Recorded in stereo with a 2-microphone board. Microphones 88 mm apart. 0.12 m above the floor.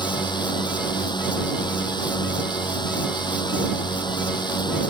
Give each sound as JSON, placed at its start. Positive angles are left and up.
{"t": 0.0, "sound": "a drone", "side_deg": 55}